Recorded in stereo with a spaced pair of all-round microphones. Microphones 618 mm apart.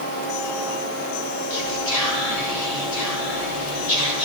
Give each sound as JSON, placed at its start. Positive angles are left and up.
{"t": 1.5, "sound": "whispering", "side_deg": 80, "distance_m": 2.5}